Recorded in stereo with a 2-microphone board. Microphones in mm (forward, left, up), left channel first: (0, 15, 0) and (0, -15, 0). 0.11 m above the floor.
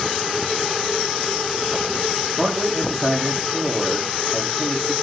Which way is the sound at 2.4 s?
Centre (ahead or behind).